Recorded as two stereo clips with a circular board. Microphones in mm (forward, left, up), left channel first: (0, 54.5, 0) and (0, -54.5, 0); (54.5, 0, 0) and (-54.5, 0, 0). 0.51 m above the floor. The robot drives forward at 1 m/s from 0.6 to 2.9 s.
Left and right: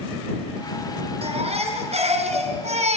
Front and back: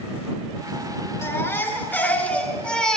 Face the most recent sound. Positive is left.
turn(degrees=-80)